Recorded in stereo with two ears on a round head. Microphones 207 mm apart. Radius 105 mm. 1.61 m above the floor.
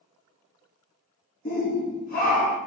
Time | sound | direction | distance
1.4 | a shout | 35° left (ahead or behind) | 0.5 m